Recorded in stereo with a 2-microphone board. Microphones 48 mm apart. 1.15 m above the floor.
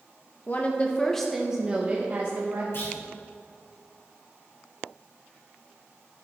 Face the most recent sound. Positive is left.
turn(degrees=55)  # may be behind; listen again after turning